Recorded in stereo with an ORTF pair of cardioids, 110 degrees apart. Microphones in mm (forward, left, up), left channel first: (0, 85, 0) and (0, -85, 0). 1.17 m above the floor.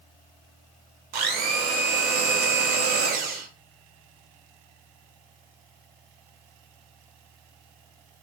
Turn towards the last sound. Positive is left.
turn(degrees=-65)